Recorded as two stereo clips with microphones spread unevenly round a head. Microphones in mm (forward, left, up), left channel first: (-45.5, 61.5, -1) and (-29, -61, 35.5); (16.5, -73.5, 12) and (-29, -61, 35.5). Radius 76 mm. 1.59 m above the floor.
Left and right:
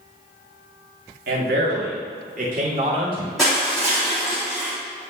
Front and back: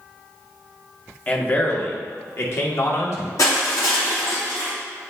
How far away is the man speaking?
About 1.8 m.